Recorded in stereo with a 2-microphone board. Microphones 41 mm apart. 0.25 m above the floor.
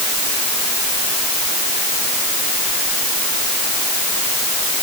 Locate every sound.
Only background noise.